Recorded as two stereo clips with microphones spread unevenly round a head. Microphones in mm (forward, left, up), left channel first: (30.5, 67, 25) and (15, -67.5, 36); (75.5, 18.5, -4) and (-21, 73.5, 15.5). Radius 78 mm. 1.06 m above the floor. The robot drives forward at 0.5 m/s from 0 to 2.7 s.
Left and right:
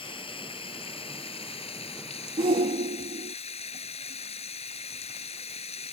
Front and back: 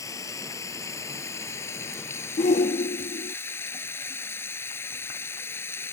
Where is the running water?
30° left; by 5.9 s 40° left.